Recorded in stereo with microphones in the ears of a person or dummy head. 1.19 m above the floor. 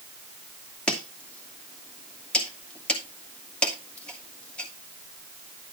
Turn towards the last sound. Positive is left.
turn(degrees=5)  # may be behind; listen again after turning